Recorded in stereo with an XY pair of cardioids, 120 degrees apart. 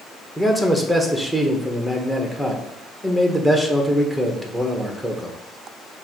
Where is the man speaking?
5° left, 1.2 m.